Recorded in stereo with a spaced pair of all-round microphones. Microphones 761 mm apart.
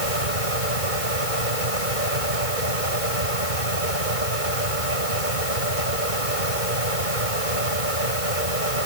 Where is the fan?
80° right.